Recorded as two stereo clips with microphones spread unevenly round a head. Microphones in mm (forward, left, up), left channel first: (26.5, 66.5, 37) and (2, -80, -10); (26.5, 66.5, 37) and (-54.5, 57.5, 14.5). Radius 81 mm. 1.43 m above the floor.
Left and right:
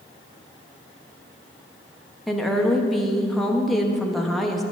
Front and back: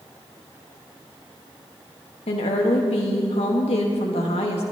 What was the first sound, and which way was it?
A woman speaking, 10° right.